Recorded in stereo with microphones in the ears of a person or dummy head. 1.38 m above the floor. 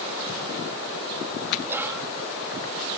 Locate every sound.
1.6 s whispering: 5° right (ahead or behind)